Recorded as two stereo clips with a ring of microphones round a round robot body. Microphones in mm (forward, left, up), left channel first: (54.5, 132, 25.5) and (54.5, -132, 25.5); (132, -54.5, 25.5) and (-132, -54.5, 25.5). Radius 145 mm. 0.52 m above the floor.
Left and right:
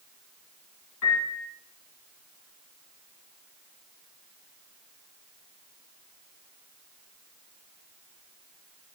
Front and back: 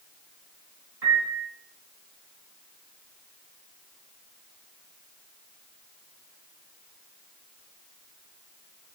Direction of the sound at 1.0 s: 135° left.